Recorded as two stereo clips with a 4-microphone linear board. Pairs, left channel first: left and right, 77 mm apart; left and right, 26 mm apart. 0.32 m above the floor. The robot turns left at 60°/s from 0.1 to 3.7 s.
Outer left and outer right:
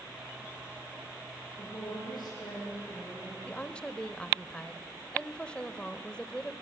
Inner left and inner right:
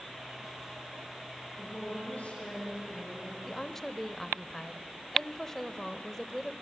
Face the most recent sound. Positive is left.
turn(degrees=15)  # may be behind; listen again after turning